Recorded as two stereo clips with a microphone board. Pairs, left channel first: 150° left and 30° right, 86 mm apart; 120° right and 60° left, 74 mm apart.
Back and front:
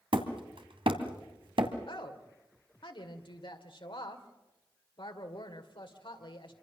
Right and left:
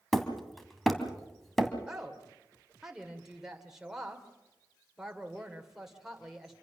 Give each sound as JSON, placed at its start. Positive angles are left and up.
{"t": 0.1, "sound": "hammering", "azimuth_deg": -35, "distance_m": 2.0}
{"t": 1.9, "sound": "a woman speaking", "azimuth_deg": 145, "distance_m": 2.0}